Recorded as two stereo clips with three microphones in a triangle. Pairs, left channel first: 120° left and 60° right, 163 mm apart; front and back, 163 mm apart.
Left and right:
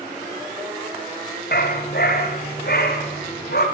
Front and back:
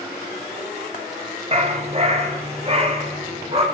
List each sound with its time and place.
1.5 s a dog barking: 130° left, 5.5 m; by 3.6 s 125° left, 7 m